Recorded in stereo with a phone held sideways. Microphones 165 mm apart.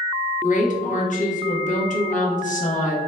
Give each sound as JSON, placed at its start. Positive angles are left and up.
{"t": 0.4, "sound": "a woman speaking", "side_deg": 50, "distance_m": 0.7}